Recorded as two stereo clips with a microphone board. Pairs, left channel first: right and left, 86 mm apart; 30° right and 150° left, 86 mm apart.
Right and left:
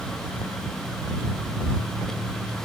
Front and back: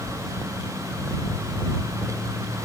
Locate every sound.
Only background noise.